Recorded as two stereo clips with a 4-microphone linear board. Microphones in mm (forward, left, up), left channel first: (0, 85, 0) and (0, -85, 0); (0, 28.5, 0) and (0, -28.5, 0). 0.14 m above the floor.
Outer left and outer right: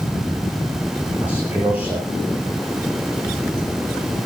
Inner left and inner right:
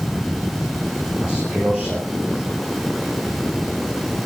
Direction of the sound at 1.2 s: 10° right (ahead or behind).